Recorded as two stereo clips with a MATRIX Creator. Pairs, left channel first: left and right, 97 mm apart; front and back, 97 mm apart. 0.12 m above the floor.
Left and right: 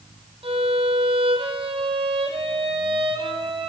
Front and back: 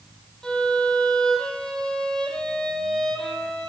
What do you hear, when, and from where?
0.4 s a violin: 80° right, 1.5 m